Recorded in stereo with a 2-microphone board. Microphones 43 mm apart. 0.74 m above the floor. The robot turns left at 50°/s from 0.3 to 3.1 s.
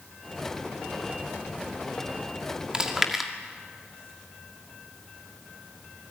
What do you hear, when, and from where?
2.7 s chewing: 20° right (ahead or behind), 2 m; by 3.3 s 5° right (ahead or behind), 2 m